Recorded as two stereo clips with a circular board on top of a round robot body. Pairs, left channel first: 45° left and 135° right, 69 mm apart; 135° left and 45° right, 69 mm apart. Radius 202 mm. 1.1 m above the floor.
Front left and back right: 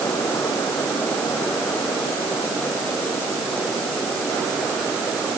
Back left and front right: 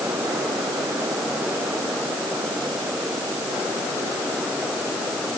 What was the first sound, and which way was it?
Only background noise.